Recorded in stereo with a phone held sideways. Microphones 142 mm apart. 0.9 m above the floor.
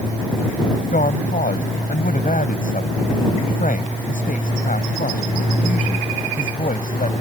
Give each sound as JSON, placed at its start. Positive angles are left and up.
{"t": 0.9, "sound": "a woman speaking", "side_deg": 75}